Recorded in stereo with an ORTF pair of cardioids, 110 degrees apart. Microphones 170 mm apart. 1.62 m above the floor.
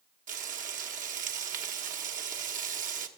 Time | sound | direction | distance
0.3 | frying | 50° right | 1.0 m